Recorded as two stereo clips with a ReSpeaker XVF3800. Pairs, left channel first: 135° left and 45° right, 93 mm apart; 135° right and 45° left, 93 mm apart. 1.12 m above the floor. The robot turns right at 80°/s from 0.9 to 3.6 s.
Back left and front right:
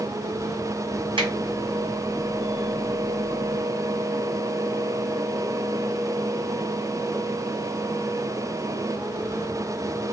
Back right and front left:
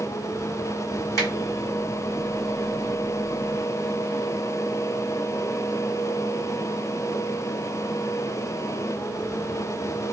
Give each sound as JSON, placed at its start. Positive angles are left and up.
{"t": 1.2, "sound": "a finger snap", "azimuth_deg": -80, "distance_m": 2.0}